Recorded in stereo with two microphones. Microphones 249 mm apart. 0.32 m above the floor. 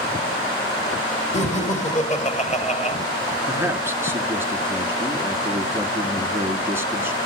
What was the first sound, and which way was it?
Laughter, 30° left (ahead or behind).